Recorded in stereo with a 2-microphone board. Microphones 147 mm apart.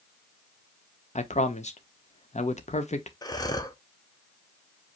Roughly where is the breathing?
Left.